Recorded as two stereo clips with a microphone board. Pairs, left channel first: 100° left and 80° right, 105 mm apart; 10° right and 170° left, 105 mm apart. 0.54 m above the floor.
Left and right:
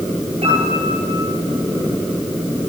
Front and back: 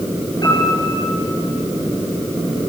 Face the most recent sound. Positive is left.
turn(degrees=-60)